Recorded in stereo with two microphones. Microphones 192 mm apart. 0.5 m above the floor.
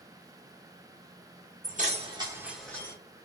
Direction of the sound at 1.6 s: 45° right (ahead or behind).